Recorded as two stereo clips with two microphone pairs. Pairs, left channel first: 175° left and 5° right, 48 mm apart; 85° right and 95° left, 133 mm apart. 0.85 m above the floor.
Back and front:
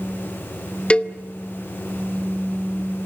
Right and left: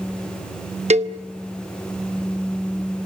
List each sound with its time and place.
0.9 s a cowbell: 115° left, 0.8 m